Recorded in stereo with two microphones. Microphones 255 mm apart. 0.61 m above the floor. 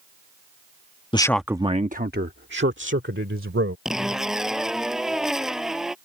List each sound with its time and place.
1.1 s a man speaking: 20° left (ahead or behind); by 3.8 s 55° right (ahead or behind)
3.9 s a zipper: centre (ahead or behind)